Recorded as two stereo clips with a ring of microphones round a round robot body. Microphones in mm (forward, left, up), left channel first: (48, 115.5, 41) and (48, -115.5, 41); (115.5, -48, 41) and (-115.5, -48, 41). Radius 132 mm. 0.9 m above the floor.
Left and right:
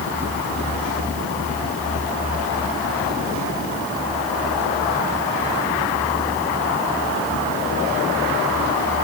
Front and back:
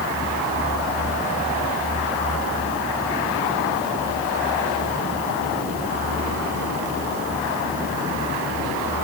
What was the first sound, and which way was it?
Only background noise.